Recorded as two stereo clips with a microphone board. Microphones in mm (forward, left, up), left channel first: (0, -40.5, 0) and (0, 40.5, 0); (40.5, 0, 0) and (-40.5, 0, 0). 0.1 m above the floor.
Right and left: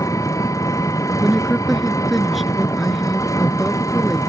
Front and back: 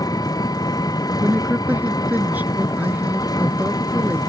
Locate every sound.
0.0 s an engine running: 40° right
1.2 s a woman speaking: straight behind